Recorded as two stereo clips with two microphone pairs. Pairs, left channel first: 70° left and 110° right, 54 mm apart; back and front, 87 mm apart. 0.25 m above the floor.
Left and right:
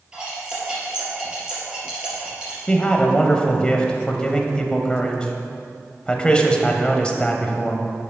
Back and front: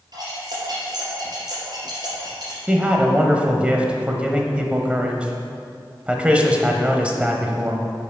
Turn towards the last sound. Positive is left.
turn(degrees=45)